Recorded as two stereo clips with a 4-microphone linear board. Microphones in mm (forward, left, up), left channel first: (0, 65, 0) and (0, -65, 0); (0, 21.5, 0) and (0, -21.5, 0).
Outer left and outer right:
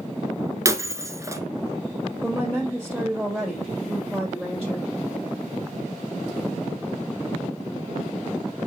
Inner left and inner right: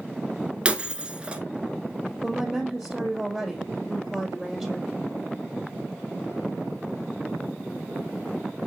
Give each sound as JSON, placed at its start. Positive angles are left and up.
{"t": 0.7, "sound": "breaking glass", "side_deg": -20, "distance_m": 0.9}
{"t": 2.2, "sound": "a woman speaking", "side_deg": 0, "distance_m": 2.5}